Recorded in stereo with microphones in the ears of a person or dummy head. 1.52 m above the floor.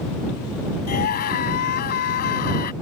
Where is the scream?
40° left (ahead or behind).